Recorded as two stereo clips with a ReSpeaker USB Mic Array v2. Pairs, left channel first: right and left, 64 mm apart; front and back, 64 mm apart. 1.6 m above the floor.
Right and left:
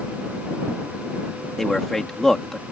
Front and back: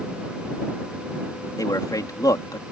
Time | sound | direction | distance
1.6 | a man speaking | 10° right | ?